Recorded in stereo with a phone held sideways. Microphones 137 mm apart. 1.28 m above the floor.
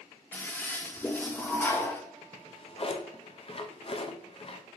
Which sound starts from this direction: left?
A drawer, at 2.3 s.